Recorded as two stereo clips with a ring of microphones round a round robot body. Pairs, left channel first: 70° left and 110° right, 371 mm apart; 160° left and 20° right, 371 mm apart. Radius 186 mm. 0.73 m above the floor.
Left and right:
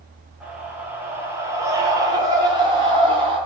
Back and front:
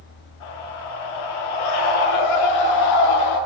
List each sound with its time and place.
0.4 s a scream: 160° left, 8.5 m; by 3.4 s 175° left, 9 m